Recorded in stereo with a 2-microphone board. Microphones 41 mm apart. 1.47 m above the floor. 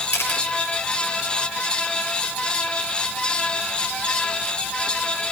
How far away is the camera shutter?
About 6 m.